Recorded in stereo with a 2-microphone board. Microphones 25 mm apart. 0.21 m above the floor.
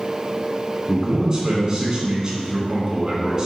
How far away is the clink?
No clink in this recording.